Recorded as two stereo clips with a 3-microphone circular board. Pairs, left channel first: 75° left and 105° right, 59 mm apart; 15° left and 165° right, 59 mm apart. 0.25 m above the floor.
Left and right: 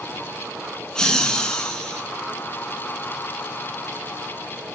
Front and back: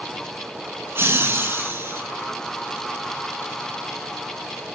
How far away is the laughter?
About 3 m.